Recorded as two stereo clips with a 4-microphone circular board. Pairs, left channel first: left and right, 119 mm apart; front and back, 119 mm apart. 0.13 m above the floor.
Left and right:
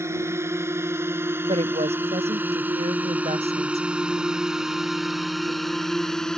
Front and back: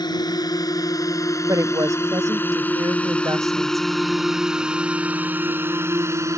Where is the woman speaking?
120° right.